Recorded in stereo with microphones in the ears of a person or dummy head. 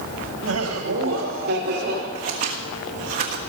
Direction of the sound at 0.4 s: 85° right.